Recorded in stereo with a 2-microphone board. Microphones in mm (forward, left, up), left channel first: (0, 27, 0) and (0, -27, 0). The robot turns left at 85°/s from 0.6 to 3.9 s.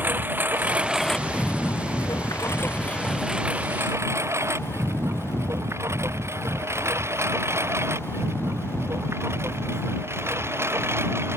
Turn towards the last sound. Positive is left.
turn(degrees=-50)  # may be behind; listen again after turning